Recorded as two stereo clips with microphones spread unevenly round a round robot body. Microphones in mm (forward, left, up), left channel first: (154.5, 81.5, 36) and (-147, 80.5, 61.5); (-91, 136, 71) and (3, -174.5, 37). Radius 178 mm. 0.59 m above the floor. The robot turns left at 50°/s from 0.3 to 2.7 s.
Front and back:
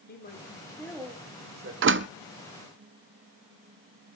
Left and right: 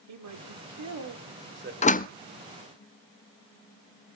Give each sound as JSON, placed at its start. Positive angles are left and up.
{"t": 0.1, "sound": "a man speaking", "azimuth_deg": -55, "distance_m": 2.5}
{"t": 1.8, "sound": "a door slam", "azimuth_deg": 170, "distance_m": 0.5}